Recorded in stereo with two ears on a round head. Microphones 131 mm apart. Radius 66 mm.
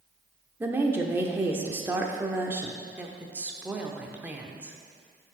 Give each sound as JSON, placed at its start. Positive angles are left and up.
{"t": 0.6, "sound": "a woman speaking", "side_deg": -15, "distance_m": 0.8}
{"t": 3.0, "sound": "a woman speaking", "side_deg": -10, "distance_m": 0.8}